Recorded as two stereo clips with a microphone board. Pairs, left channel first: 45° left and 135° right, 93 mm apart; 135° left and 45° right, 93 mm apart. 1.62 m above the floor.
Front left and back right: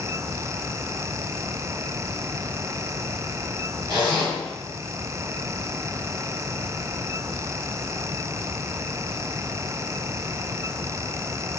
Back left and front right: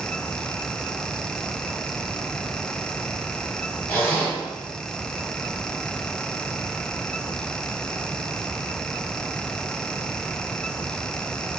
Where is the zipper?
155° right, 1.9 m.